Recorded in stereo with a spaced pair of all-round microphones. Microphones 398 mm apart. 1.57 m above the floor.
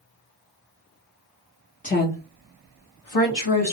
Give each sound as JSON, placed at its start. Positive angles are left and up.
{"t": 1.8, "sound": "a woman speaking", "side_deg": 20, "distance_m": 0.8}